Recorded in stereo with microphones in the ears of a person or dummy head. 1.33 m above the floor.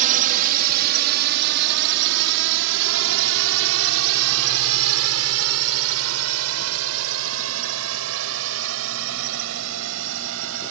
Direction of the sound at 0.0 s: 45° right (ahead or behind).